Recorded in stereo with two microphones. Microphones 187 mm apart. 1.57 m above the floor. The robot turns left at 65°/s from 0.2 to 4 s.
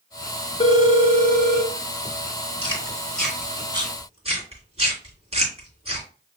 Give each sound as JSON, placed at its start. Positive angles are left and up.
{"t": 0.6, "sound": "a phone ringing", "azimuth_deg": 120, "distance_m": 0.9}
{"t": 2.6, "sound": "chewing", "side_deg": 30, "distance_m": 2.0}